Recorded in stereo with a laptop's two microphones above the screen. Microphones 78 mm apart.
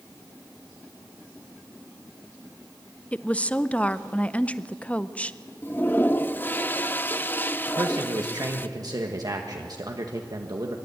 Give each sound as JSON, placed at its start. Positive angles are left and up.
{"t": 3.1, "sound": "a woman speaking", "side_deg": 15, "distance_m": 0.5}
{"t": 5.6, "sound": "a toilet flushing", "side_deg": 25, "distance_m": 0.9}
{"t": 7.7, "sound": "a man speaking", "side_deg": -55, "distance_m": 1.4}